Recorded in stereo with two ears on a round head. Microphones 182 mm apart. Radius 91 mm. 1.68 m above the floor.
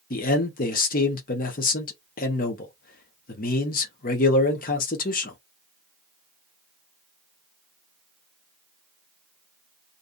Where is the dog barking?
No dog barking in this recording.